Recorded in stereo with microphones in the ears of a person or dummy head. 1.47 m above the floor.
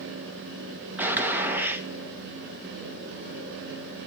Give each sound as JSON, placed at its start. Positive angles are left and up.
{"t": 1.0, "sound": "a gunshot", "side_deg": -10, "distance_m": 1.6}